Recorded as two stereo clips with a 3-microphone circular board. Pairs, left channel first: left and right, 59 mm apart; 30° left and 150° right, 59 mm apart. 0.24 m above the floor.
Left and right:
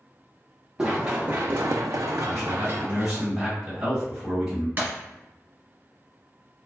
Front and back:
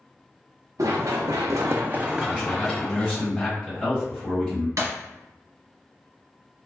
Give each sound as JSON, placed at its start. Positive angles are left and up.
{"t": 0.8, "sound": "running footsteps", "azimuth_deg": -165, "distance_m": 1.1}
{"t": 2.2, "sound": "a man speaking", "azimuth_deg": -35, "distance_m": 1.6}
{"t": 4.8, "sound": "breaking glass", "azimuth_deg": -145, "distance_m": 1.6}